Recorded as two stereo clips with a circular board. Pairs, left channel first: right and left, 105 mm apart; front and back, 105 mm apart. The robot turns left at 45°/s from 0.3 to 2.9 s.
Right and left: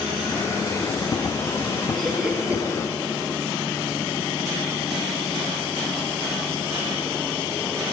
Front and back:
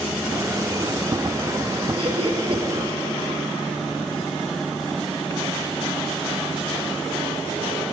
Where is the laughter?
170° right, 2.5 m; by 2.6 s 160° left, 2.5 m.